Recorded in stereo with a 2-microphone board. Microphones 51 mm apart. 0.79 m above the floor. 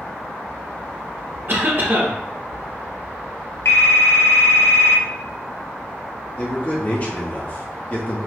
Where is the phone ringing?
75° left (ahead or behind), 0.9 m.